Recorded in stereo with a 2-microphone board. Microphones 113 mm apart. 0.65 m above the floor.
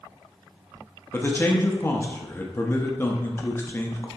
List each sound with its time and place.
1.1 s a man speaking: 20° left (ahead or behind), 0.6 m